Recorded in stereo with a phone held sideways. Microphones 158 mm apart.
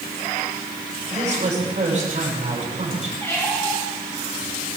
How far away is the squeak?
About 4 m.